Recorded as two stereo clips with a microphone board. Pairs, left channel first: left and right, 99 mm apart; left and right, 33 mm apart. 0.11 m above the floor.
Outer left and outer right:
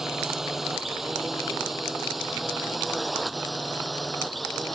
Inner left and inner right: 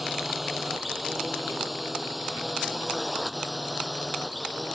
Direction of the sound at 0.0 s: 5° right (ahead or behind).